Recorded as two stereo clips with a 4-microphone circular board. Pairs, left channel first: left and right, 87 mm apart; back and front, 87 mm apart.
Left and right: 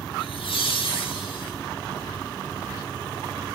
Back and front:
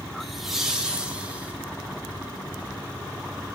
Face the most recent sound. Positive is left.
turn(degrees=75)